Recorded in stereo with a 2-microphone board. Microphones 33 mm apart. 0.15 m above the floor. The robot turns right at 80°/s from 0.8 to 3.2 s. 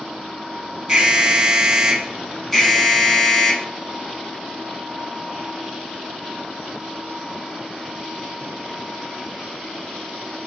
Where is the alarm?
20° right (ahead or behind), 0.9 m; by 3.7 s 20° left (ahead or behind), 0.9 m.